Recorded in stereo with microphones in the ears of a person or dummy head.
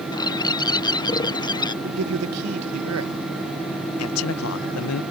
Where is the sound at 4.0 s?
85° left.